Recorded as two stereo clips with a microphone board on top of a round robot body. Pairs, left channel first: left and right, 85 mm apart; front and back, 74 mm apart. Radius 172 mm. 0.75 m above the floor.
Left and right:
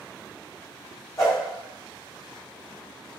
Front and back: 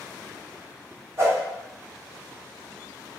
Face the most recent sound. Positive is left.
turn(degrees=140)